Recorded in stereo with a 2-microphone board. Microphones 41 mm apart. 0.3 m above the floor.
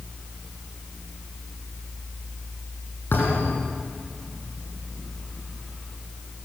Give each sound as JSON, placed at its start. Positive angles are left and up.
{"t": 3.1, "sound": "a thud", "side_deg": 60, "distance_m": 6.5}